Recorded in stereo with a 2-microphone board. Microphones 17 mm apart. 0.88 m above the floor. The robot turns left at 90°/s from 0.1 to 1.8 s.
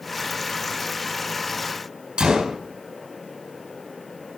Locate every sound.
2.2 s a gunshot: 75° right (ahead or behind), 4 m